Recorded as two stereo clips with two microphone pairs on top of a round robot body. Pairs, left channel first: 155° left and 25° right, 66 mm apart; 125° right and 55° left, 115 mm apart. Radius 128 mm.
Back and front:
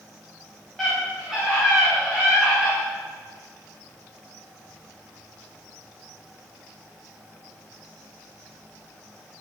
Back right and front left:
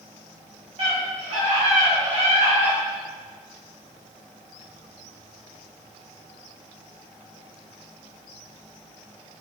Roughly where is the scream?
Ahead left.